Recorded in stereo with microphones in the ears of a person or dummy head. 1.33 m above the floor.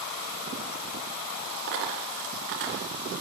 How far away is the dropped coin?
About 2 m.